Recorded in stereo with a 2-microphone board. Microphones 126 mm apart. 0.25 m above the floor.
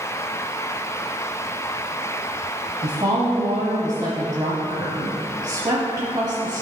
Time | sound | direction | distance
2.8 | a woman speaking | 35° right (ahead or behind) | 1.2 m